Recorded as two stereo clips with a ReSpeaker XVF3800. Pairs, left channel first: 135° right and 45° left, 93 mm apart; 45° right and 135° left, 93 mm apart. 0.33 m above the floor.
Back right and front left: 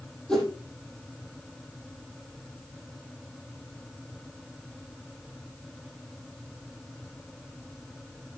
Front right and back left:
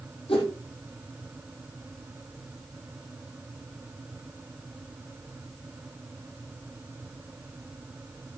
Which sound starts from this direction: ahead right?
A whoosh, at 0.3 s.